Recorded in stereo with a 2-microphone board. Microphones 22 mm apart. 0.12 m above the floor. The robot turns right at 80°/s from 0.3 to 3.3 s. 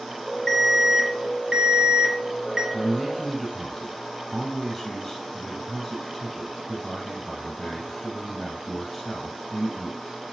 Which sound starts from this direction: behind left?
An alarm, at 0.5 s.